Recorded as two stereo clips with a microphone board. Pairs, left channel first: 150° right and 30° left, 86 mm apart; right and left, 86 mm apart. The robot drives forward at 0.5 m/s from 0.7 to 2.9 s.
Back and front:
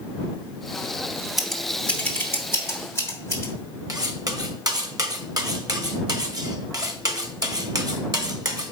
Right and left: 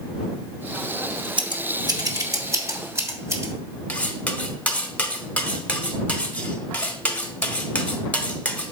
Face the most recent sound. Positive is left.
turn(degrees=-15)